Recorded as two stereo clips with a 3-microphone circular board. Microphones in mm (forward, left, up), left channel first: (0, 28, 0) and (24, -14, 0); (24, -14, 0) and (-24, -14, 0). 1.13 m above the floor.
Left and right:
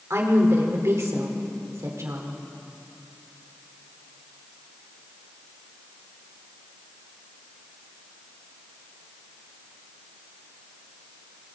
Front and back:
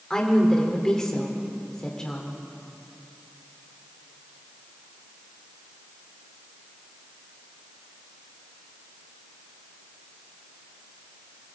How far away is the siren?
I don't hear a siren.